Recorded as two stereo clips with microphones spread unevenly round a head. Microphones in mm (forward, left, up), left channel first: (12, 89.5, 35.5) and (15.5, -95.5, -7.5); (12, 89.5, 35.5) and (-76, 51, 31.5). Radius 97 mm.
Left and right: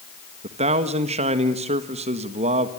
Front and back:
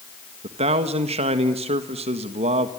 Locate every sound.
0.4 s a man speaking: 145° right, 1.6 m